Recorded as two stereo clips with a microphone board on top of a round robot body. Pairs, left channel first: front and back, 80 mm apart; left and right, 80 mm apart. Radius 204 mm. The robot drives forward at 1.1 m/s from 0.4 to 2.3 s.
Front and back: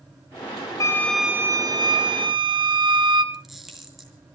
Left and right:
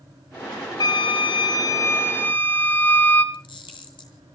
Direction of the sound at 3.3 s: 90° left.